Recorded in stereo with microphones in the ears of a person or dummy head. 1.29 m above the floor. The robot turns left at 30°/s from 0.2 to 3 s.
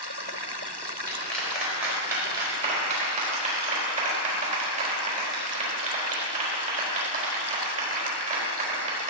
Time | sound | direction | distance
1.1 | a clap | 10° left (ahead or behind) | 4.5 m